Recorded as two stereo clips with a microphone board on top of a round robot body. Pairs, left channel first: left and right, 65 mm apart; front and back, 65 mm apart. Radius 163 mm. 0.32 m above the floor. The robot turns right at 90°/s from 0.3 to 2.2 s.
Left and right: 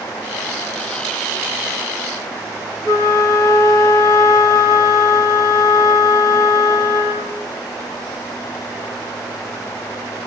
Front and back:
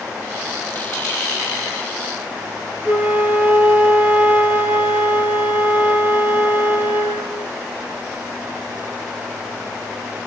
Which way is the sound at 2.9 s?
120° left.